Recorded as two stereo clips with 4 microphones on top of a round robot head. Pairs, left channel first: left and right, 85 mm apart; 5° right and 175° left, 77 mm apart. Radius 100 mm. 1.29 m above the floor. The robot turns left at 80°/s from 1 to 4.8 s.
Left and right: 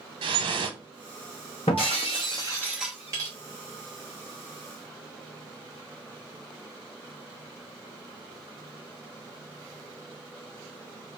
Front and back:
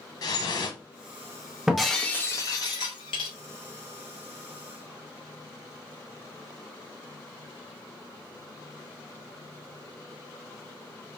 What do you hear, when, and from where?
0.2 s dripping: 55° right, 0.7 m
1.7 s breaking glass: 90° left, 0.8 m; by 3.3 s 40° right, 0.8 m